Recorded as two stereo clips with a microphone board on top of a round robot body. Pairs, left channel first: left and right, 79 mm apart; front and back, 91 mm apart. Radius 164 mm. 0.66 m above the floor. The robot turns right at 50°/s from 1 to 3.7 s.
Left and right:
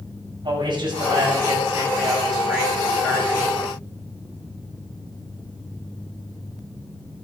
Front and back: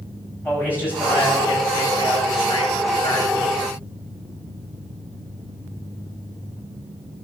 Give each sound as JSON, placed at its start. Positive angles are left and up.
{"t": 0.4, "sound": "a man speaking", "azimuth_deg": -70, "distance_m": 8.0}